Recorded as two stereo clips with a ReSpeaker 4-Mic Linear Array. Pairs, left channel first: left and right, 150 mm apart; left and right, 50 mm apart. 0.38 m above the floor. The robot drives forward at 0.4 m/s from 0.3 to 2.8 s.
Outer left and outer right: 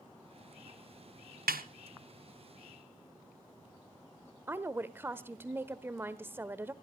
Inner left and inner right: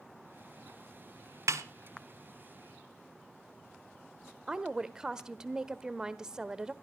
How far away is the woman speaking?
About 1.1 m.